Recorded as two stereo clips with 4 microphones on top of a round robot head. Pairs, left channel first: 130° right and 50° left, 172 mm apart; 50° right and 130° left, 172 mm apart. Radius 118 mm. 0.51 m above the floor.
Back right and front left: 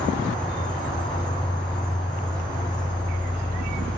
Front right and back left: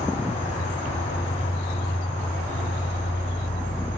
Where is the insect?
75° right, 2.5 m.